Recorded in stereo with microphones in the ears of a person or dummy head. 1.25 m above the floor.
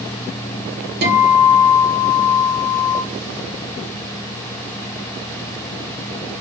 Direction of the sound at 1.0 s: 55° right (ahead or behind).